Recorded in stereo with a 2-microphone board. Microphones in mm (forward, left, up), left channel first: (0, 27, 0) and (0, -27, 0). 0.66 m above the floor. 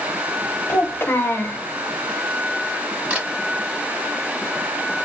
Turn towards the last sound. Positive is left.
turn(degrees=-25)  # may be behind; listen again after turning